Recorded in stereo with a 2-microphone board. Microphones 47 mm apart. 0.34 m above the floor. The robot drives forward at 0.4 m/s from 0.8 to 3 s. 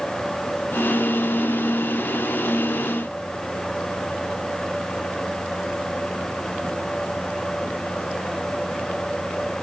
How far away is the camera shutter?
No camera shutter in this recording.